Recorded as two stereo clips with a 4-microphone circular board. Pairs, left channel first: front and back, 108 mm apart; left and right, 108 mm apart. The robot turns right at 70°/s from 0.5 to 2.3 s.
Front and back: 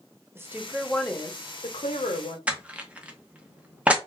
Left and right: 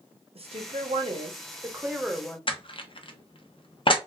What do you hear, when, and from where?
0.3 s a woman speaking: 115° right, 0.7 m; by 2.4 s 15° left, 0.7 m
2.5 s crushing: 105° left, 0.5 m